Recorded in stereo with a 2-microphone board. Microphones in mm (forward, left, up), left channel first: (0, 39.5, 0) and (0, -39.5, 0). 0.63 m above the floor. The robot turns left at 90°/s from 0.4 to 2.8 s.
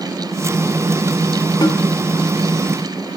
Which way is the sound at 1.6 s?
65° left (ahead or behind).